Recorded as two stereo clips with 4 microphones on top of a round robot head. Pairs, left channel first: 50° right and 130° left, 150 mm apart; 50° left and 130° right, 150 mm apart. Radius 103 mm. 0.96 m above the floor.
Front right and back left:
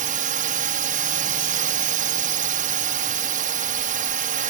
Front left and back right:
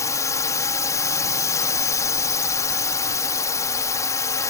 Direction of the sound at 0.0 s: 115° left.